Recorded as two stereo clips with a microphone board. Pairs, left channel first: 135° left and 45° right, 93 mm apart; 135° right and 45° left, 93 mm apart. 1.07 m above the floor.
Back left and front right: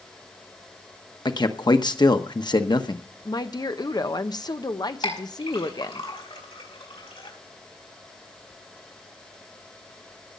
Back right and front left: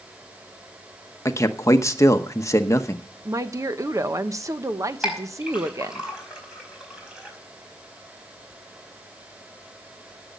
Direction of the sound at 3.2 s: 100° left.